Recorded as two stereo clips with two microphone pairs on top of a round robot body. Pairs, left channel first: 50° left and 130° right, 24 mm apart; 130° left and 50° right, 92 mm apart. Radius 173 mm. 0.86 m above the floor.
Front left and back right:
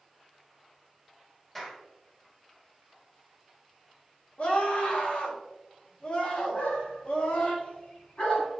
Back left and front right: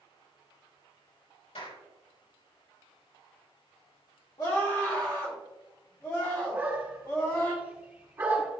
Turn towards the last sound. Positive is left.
turn(degrees=15)